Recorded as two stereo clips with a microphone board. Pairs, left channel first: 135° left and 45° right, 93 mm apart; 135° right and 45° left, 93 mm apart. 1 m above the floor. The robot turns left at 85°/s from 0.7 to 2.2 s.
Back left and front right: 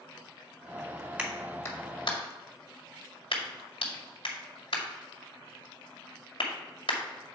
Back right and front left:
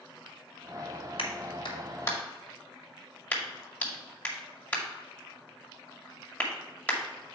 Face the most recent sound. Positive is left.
turn(degrees=150)